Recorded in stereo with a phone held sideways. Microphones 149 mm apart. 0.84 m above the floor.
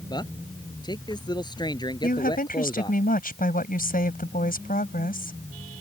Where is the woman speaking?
75° left (ahead or behind).